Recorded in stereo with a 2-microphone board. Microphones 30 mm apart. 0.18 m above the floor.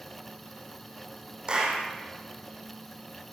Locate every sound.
1.5 s a clap: 25° right (ahead or behind), 6.5 m